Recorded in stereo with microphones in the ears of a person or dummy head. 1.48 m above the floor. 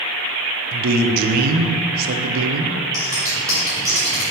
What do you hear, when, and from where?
0.7 s a man speaking: 45° right (ahead or behind), 0.8 m
2.9 s scissors: 15° right (ahead or behind), 1.9 m